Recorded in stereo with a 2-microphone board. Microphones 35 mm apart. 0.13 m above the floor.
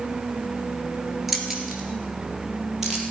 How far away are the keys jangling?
About 1.6 m.